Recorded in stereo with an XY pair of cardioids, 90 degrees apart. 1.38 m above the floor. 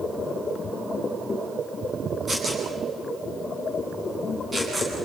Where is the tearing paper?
25° right, 10 m.